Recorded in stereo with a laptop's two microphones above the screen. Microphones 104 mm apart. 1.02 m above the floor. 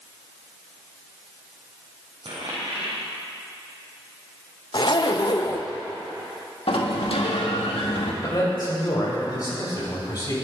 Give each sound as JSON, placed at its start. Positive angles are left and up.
{"t": 2.2, "sound": "a dropped coin", "side_deg": -65, "distance_m": 3.5}
{"t": 4.7, "sound": "a zipper", "side_deg": 50, "distance_m": 0.8}
{"t": 6.7, "sound": "a sliding door", "side_deg": 70, "distance_m": 1.3}
{"t": 8.2, "sound": "a man speaking", "side_deg": 40, "distance_m": 5.0}